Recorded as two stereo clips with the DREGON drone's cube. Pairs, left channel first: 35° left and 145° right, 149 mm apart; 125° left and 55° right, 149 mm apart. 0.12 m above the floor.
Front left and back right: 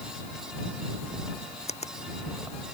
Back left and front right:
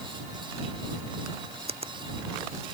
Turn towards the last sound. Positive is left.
turn(degrees=-10)